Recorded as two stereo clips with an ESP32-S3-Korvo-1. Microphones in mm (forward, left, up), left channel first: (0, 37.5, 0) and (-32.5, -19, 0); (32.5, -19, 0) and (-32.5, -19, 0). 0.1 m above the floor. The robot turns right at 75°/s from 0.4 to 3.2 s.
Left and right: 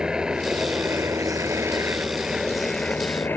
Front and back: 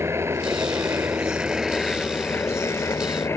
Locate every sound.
0.0 s a helicopter: 165° left; by 3.4 s 15° left